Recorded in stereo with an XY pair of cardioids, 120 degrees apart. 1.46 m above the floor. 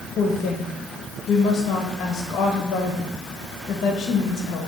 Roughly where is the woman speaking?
Ahead left.